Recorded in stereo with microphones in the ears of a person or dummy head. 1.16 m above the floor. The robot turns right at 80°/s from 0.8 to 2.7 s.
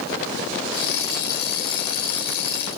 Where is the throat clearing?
No throat clearing in this recording.